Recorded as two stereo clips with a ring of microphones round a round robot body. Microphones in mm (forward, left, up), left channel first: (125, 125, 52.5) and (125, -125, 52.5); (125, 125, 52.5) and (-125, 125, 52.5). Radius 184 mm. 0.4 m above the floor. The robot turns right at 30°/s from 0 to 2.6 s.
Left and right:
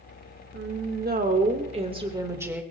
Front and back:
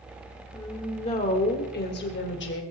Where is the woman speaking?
70° right, 1.7 m; by 2.6 s 10° right, 1.7 m.